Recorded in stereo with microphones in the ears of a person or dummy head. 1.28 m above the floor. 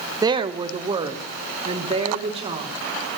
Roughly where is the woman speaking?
Centre.